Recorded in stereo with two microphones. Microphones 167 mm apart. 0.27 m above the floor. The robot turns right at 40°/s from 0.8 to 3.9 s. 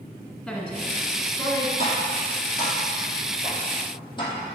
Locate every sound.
0.5 s a woman speaking: straight ahead, 1.2 m; by 1.7 s 40° left, 1.2 m
1.8 s tapping: 55° right (ahead or behind), 2 m; by 4.3 s 30° left (ahead or behind), 2 m